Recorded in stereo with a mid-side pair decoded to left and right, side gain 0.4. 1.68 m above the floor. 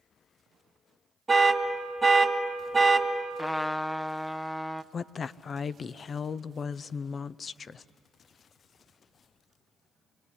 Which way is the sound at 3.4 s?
10° left.